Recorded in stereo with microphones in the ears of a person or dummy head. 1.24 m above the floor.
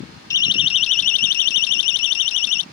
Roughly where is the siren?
Centre.